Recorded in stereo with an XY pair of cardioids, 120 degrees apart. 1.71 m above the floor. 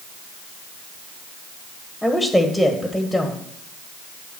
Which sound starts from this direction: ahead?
A woman speaking, at 2.0 s.